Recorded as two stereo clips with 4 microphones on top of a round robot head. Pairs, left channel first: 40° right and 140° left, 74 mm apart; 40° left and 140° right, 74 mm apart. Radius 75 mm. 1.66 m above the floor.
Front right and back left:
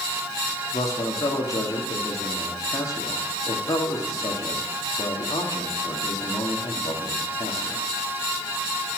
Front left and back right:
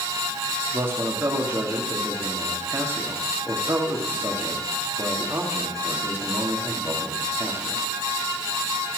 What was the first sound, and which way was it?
A man speaking, 80° right.